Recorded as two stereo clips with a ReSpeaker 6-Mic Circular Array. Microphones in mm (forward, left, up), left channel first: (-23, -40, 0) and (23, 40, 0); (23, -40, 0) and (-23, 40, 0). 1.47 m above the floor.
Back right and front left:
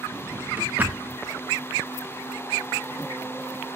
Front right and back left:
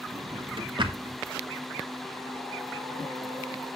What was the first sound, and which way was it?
A drawer, 130° left.